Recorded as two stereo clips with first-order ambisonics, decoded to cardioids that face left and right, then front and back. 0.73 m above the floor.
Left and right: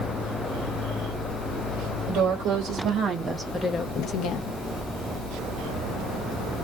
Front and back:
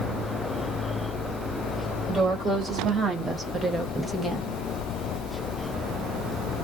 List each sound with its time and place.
2.1 s a woman speaking: 115° right, 1.3 m; by 4.6 s 85° left, 1.0 m